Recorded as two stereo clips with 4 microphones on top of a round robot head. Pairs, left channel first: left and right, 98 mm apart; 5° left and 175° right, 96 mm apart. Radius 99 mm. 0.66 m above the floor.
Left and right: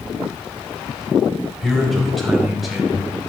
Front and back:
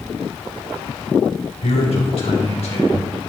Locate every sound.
1.6 s a man speaking: 5° left, 4 m; by 3.1 s straight ahead, 5 m